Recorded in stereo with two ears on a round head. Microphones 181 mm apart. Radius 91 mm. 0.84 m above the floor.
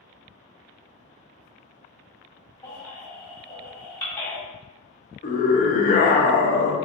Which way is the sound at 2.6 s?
10° left (ahead or behind).